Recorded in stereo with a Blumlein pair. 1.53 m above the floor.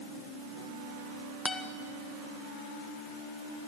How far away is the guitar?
About 1.7 m.